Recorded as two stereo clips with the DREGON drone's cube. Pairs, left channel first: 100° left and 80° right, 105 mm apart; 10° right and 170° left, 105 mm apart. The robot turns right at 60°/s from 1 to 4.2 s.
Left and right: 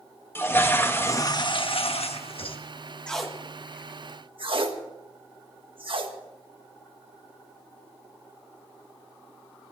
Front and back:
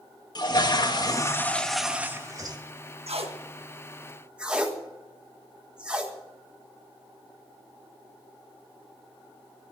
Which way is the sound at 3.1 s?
Straight behind.